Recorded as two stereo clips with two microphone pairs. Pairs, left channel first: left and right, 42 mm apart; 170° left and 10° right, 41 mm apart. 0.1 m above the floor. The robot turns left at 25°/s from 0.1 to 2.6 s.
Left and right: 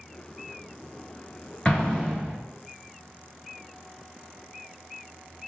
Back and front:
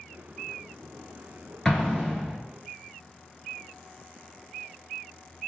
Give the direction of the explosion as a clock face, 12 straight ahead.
8 o'clock.